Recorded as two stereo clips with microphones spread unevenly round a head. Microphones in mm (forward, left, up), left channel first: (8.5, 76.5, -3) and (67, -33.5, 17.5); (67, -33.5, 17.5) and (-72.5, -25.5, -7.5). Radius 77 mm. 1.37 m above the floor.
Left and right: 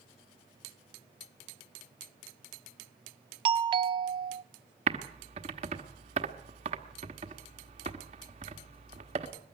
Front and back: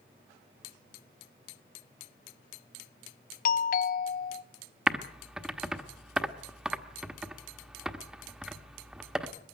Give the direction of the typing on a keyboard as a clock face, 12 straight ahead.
3 o'clock.